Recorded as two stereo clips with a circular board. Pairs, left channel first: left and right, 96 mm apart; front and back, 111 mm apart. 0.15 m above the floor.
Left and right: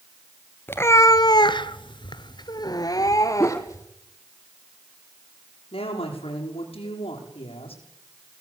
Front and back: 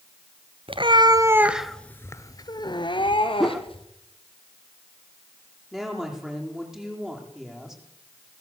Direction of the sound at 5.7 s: 95° left.